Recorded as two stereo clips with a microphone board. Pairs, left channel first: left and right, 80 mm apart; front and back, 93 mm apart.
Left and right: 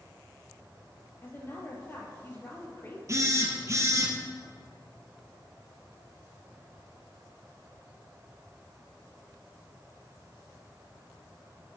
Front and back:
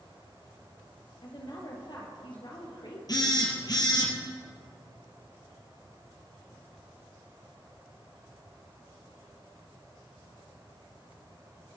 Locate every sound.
1.2 s a woman speaking: 30° left, 3.5 m
3.1 s a phone buzzing: 40° right, 2.5 m